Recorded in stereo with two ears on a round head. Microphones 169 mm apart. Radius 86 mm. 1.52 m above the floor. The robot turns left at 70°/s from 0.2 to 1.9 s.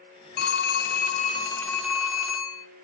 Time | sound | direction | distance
0.4 | a phone ringing | 95° left | 0.7 m